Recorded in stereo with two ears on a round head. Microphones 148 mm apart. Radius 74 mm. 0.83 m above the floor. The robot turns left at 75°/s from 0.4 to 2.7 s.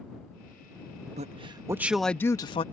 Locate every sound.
1.2 s a man speaking: 115° right; by 2.6 s 130° left